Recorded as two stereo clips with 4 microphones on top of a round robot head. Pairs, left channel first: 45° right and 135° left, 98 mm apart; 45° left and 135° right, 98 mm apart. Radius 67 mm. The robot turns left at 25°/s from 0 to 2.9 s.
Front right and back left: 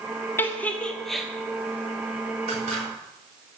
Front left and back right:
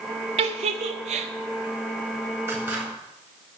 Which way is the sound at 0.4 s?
110° right.